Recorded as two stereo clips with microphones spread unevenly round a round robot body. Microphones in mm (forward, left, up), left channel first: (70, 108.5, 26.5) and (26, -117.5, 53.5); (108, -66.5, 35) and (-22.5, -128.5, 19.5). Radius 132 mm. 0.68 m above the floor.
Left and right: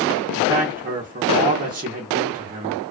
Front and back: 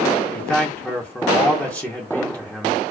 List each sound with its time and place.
0.3 s a man speaking: 60° right, 0.9 m